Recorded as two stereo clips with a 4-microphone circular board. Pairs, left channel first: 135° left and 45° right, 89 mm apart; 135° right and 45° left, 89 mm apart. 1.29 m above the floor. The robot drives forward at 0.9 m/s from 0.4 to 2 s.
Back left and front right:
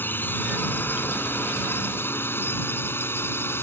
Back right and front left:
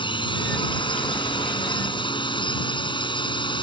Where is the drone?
155° right; by 3.6 s 160° right.